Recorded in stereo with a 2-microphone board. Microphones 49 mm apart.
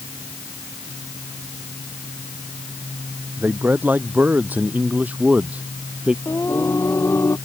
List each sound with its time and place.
3.4 s a man speaking: 40° right (ahead or behind); by 6.2 s 25° right (ahead or behind)
6.2 s singing: 60° left (ahead or behind)